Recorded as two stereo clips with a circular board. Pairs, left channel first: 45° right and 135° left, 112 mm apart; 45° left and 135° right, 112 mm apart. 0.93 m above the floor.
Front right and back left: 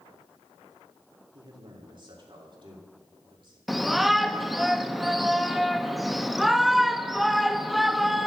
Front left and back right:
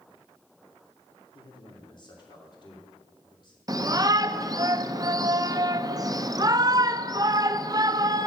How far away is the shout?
About 0.7 m.